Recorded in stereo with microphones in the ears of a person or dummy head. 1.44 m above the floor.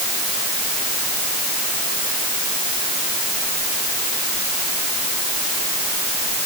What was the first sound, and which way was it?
Only background noise.